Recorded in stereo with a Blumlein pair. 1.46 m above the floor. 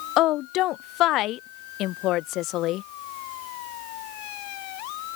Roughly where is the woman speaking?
Ahead left.